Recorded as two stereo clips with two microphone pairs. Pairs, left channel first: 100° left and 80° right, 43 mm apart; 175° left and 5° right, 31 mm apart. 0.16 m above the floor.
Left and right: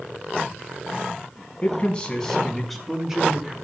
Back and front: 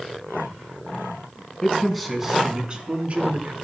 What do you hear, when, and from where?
1.6 s a man speaking: 110° left, 1.3 m; by 3.5 s 10° right, 1.8 m